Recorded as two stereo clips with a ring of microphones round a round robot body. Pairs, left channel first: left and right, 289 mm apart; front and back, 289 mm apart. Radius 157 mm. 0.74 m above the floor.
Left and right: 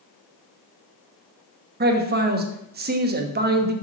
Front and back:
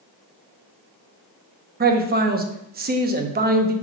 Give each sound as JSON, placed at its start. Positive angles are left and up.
{"t": 1.8, "sound": "a man speaking", "azimuth_deg": -135, "distance_m": 1.0}